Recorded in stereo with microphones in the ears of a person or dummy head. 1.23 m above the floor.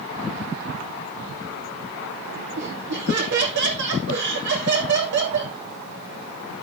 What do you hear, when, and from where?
2.6 s laughter: 60° right (ahead or behind), 3 m